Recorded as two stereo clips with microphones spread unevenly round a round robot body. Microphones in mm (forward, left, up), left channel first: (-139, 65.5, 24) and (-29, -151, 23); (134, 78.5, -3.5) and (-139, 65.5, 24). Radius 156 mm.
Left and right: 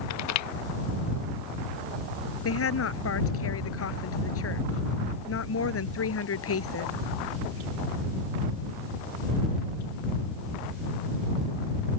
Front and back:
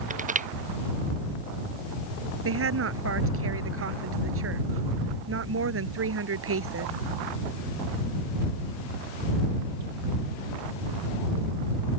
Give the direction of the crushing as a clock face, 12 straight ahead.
8 o'clock.